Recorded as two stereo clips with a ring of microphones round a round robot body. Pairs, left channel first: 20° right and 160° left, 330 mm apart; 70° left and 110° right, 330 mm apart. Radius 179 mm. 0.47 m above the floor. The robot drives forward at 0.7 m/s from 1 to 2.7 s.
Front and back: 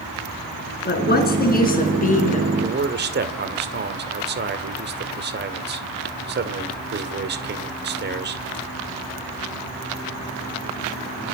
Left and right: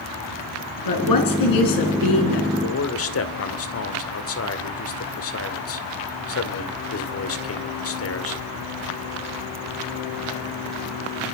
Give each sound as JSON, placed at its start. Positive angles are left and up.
{"t": 0.8, "sound": "a woman speaking", "azimuth_deg": 40, "distance_m": 6.0}
{"t": 2.6, "sound": "a man speaking", "azimuth_deg": 105, "distance_m": 2.5}